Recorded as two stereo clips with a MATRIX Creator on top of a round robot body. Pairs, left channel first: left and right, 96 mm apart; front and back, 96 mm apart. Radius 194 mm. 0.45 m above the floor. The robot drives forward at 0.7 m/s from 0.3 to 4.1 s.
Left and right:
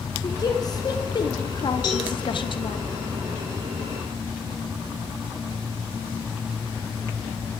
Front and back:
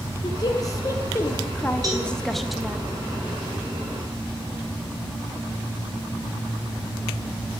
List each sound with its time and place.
0.2 s a woman speaking: 45° left, 2.5 m; by 2.8 s 100° left, 1.7 m
1.8 s a cowbell: 130° left, 4.5 m